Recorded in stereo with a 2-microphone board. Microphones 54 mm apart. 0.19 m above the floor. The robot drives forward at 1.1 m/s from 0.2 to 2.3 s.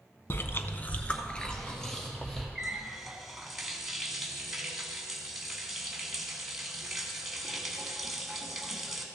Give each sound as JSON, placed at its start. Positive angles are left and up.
{"t": 0.3, "sound": "chewing", "side_deg": 45, "distance_m": 0.5}
{"t": 2.5, "sound": "a running tap", "side_deg": -5, "distance_m": 1.1}